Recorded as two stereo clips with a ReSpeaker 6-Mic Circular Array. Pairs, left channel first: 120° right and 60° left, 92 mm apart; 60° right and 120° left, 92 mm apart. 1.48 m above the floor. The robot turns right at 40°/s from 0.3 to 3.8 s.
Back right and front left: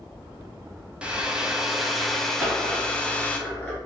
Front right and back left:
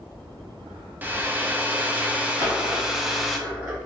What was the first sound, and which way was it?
A hair dryer, 115° left.